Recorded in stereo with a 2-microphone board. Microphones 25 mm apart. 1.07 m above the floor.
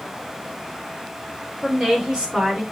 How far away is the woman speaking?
About 5 m.